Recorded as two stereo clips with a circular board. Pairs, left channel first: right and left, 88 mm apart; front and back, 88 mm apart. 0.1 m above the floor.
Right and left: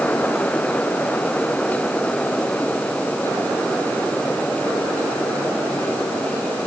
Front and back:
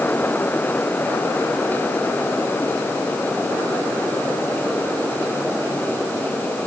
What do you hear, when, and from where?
Only background noise.